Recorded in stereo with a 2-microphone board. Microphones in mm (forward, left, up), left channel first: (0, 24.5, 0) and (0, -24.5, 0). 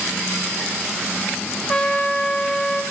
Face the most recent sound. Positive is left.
turn(degrees=20)  # may be behind; listen again after turning